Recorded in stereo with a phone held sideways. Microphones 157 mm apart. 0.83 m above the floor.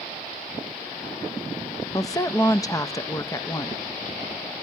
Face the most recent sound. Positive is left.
turn(degrees=20)  # may be behind; listen again after turning